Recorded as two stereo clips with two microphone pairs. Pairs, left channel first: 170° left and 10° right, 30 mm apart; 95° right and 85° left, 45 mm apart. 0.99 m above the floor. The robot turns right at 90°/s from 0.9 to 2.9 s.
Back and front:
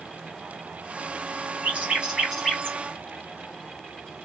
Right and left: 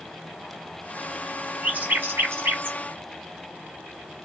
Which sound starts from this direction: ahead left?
A bird, at 1.6 s.